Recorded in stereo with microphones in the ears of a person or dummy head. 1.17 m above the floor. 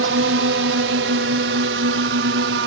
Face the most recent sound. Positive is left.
turn(degrees=-65)  # may be behind; listen again after turning